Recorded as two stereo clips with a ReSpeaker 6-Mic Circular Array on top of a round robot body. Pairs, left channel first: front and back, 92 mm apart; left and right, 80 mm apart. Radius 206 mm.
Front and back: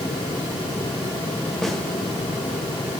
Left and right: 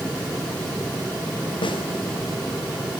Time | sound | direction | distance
1.6 | a snare drum | 85° left | 3 m